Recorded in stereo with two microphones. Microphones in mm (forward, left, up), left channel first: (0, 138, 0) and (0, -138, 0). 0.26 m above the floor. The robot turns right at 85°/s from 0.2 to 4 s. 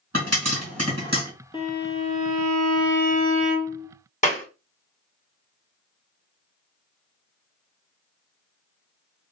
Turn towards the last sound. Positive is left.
turn(degrees=25)  # may be behind; listen again after turning